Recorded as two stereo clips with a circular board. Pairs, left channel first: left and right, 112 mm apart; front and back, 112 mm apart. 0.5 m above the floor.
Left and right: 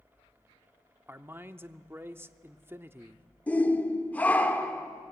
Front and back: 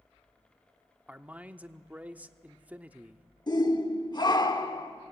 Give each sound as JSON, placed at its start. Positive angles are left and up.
{"t": 1.1, "sound": "a man speaking", "azimuth_deg": -125, "distance_m": 0.7}
{"t": 3.5, "sound": "a shout", "azimuth_deg": 20, "distance_m": 1.4}